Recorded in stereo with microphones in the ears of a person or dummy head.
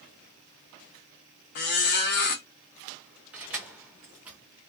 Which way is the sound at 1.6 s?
40° left (ahead or behind).